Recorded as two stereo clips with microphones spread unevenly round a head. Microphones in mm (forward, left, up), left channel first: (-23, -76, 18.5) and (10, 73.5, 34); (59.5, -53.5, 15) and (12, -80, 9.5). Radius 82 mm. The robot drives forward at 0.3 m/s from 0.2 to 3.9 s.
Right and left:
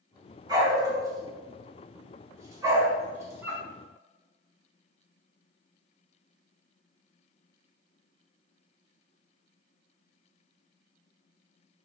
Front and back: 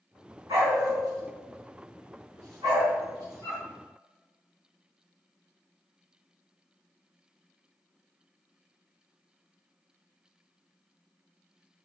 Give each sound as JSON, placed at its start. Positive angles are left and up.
{"t": 0.5, "sound": "a dog barking", "azimuth_deg": 140, "distance_m": 3.0}